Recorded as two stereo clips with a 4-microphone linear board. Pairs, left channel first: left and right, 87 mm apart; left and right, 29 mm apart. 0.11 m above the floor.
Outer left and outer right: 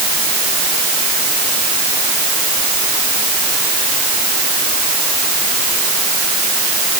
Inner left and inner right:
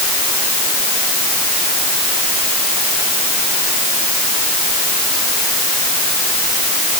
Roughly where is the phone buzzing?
I don't hear a phone buzzing.